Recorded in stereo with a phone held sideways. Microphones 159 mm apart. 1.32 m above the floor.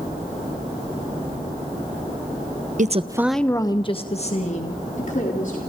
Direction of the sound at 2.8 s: 55° right (ahead or behind).